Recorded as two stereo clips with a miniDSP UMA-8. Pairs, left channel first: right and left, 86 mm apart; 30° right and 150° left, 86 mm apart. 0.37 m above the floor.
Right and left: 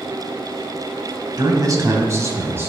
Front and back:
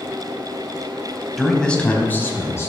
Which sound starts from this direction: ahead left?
A man speaking, at 1.4 s.